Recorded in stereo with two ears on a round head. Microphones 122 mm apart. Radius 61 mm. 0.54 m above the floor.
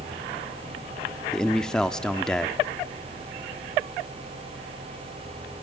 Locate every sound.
1.3 s a man speaking: 5° left (ahead or behind), 0.7 m